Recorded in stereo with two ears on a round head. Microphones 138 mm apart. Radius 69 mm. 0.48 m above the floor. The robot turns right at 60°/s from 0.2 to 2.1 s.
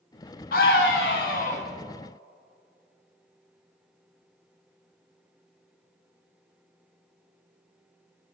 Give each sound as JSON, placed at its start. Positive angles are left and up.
{"t": 0.5, "sound": "a scream", "azimuth_deg": 65, "distance_m": 4.0}